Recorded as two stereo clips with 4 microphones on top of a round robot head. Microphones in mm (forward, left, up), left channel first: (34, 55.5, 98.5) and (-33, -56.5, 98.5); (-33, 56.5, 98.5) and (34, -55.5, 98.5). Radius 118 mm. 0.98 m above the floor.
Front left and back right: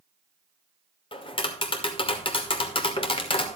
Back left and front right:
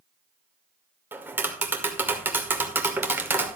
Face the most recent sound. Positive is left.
turn(degrees=15)